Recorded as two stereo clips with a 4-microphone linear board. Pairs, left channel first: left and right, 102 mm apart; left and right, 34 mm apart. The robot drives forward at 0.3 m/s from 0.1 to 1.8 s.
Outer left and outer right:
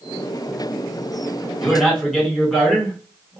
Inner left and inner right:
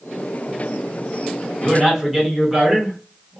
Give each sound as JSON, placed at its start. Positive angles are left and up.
{"t": 1.6, "sound": "a man speaking", "side_deg": 5, "distance_m": 1.1}